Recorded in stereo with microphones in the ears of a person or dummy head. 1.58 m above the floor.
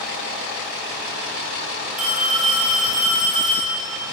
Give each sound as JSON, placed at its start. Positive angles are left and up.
{"t": 2.0, "sound": "a phone ringing", "side_deg": -5, "distance_m": 3.0}